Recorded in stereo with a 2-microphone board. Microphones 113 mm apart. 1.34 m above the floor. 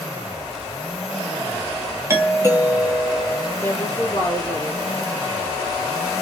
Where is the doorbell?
25° right (ahead or behind), 1.1 m.